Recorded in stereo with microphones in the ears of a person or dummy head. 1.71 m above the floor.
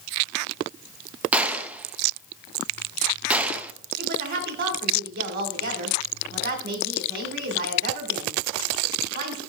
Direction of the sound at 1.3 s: 5° right (ahead or behind).